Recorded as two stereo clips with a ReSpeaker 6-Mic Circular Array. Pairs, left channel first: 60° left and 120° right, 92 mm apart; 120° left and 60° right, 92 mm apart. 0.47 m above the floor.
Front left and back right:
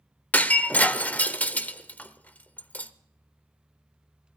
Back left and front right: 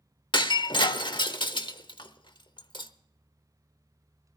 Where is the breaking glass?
130° left, 0.8 m.